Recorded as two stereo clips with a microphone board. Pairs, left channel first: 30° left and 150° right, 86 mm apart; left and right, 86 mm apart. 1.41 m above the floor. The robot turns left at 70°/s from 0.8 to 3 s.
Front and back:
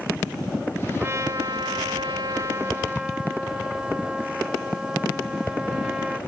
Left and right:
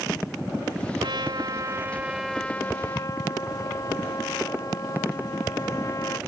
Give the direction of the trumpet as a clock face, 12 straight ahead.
3 o'clock.